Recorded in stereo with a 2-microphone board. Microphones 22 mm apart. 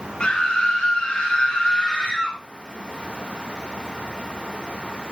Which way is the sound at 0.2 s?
35° left (ahead or behind).